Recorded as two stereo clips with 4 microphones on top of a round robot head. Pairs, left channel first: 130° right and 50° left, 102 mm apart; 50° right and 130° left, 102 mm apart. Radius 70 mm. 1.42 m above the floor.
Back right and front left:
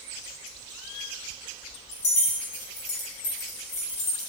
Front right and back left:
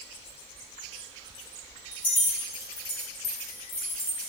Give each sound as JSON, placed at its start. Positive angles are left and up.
{"t": 1.9, "sound": "keys jangling", "azimuth_deg": -130, "distance_m": 2.5}